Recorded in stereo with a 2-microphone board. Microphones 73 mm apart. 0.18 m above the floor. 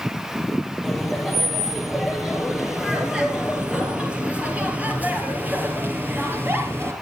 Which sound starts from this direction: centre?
Laughter, at 0.8 s.